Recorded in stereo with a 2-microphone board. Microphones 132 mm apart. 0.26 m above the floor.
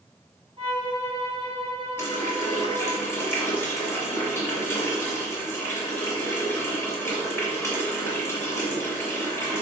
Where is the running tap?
20° left (ahead or behind), 1.7 m.